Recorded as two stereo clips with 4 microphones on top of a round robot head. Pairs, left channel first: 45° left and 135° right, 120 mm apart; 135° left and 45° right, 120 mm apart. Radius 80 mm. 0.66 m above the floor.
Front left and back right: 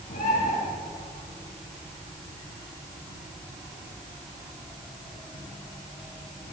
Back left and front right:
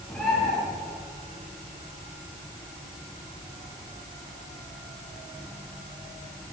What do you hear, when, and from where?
0.1 s a bird: 55° left, 10 m